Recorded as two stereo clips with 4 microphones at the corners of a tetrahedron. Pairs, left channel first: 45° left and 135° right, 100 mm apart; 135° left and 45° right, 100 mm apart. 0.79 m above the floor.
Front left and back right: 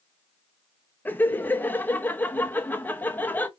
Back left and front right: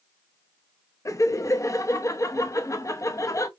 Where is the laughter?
105° left, 0.6 m.